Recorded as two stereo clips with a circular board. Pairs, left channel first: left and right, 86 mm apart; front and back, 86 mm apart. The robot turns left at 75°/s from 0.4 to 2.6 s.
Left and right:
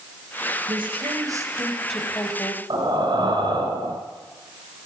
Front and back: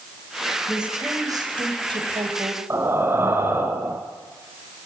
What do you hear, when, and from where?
0.7 s a woman speaking: 90° right, 4 m; by 2.6 s 125° left, 4 m
2.7 s breathing: 120° right, 3 m